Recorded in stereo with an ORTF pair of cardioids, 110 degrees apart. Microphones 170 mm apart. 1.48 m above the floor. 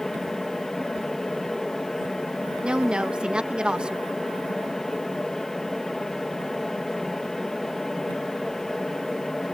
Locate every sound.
0.0 s a fan: 5° left
2.6 s a woman speaking: 5° right